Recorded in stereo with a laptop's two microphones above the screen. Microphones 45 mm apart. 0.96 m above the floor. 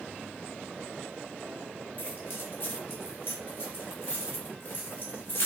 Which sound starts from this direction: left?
Keys jangling, at 2.0 s.